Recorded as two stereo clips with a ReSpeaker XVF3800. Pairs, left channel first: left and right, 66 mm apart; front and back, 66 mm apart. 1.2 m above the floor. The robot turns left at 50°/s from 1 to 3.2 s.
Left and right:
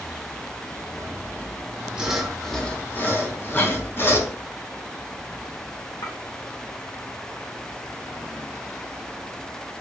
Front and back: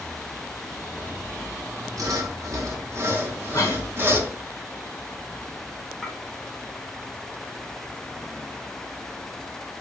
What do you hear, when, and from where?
1.0 s sawing: 115° right, 0.9 m; by 4.4 s 135° left, 0.9 m
3.5 s a cough: 25° left, 1.0 m
6.0 s a clink: 90° left, 1.4 m